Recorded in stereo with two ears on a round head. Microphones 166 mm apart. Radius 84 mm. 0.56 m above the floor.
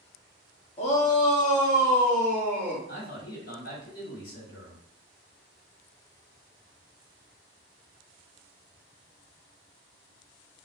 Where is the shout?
35° left (ahead or behind), 0.8 m; by 2.8 s 45° left (ahead or behind), 1.8 m.